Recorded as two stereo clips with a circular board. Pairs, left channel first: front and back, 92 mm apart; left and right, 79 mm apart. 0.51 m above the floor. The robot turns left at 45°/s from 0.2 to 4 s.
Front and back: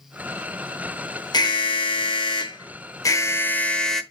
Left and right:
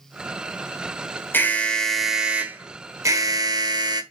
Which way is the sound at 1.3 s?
30° left.